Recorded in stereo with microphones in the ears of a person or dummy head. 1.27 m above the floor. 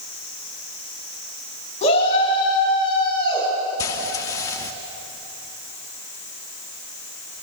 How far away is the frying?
About 0.7 m.